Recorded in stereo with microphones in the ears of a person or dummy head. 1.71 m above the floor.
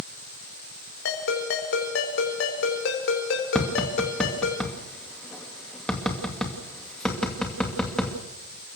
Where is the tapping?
5° left (ahead or behind), 2.5 m.